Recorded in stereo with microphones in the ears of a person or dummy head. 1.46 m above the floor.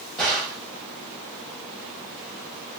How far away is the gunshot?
About 1.2 m.